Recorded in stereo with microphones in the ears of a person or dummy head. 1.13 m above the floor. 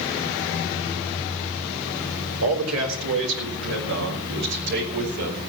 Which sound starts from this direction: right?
A man speaking, at 2.4 s.